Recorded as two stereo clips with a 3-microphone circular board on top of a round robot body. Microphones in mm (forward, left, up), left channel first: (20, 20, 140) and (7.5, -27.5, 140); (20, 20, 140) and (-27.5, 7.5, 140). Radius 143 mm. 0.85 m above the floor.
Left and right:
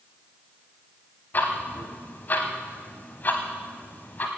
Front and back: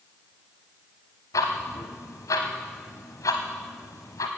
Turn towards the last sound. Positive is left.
turn(degrees=20)